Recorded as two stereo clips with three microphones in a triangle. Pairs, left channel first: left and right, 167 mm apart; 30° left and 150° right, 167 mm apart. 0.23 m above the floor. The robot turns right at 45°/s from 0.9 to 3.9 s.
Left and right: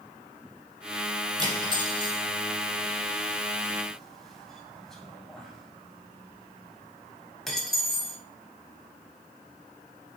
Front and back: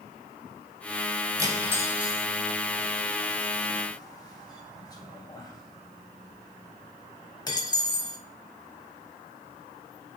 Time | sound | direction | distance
1.4 | cutlery clinking | 110° right | 0.6 m